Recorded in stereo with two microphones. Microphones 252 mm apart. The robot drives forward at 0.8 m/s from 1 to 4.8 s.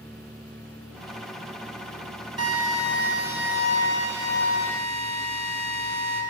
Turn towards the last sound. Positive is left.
turn(degrees=-40)  # may be behind; listen again after turning